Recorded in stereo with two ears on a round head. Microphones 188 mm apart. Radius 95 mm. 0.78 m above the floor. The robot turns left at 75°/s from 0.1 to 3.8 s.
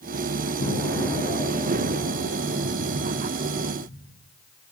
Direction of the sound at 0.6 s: 40° left.